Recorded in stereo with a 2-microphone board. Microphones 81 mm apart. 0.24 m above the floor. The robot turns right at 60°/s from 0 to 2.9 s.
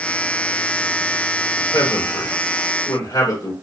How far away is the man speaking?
About 3 m.